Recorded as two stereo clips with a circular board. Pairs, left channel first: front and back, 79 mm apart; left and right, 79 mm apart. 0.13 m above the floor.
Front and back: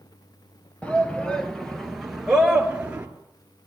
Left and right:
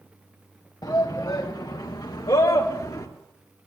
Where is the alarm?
No alarm in this recording.